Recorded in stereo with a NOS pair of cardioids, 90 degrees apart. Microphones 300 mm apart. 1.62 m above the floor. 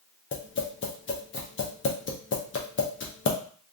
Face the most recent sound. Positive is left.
turn(degrees=40)